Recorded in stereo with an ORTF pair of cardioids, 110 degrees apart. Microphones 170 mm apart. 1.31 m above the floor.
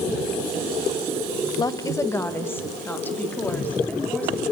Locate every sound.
1.6 s a woman speaking: 25° left, 1.1 m; by 4.4 s 10° left, 4.5 m